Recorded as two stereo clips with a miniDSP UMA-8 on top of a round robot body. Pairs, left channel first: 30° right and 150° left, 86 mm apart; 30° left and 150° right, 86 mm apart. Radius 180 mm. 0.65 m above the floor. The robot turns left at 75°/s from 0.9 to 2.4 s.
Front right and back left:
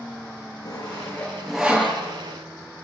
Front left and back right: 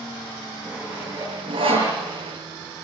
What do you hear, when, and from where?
0.7 s sawing: 75° right, 9.5 m; by 2.0 s 155° right, 9.5 m